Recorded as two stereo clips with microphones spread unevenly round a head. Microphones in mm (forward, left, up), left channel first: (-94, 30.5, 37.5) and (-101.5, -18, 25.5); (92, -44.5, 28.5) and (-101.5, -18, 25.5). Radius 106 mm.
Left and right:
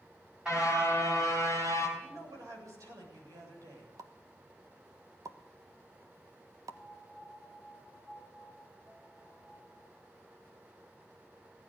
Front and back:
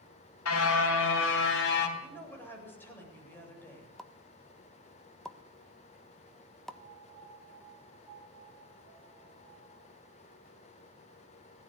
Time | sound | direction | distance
0.5 | a car horn | 10° right | 4 m
2.0 | a woman speaking | 85° right | 8.5 m
4.0 | a pop | 95° right | 1.3 m
6.7 | a piano | 130° right | 9.5 m